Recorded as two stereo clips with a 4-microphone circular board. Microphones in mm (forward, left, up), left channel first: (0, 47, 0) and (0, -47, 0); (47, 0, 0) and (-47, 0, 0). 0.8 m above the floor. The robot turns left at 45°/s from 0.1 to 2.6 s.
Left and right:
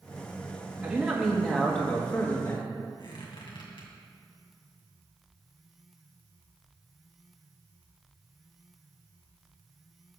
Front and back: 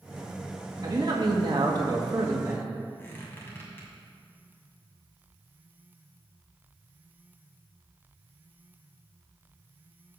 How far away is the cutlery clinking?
I don't hear cutlery clinking.